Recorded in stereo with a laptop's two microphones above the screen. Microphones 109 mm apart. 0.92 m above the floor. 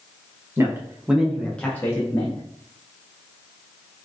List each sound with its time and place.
0.6 s a man speaking: 25° right (ahead or behind), 0.8 m; by 2.4 s 30° left (ahead or behind), 0.9 m